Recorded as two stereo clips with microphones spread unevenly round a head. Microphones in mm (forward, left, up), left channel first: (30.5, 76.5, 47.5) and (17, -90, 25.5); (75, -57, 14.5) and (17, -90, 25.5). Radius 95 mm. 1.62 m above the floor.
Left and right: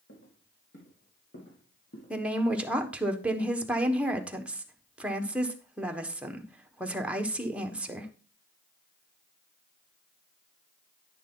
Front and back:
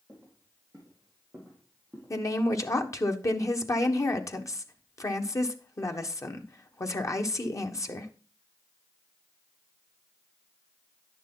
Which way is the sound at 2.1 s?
10° right.